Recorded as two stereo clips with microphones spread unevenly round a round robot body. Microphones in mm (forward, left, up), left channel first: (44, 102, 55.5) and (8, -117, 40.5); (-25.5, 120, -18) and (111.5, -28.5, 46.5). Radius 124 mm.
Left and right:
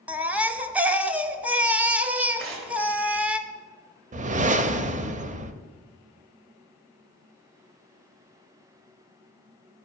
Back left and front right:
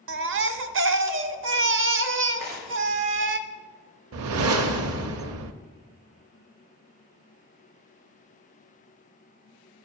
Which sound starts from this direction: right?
Tearing paper, at 2.4 s.